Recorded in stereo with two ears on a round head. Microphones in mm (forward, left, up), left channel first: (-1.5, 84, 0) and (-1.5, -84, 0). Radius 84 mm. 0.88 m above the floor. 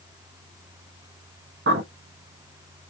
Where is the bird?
60° right (ahead or behind), 0.9 m.